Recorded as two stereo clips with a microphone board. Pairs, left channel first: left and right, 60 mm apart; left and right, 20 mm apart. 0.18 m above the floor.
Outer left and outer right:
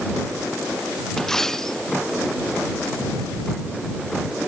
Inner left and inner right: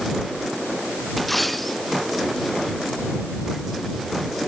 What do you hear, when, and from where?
1.2 s a dropped coin: 5° left (ahead or behind)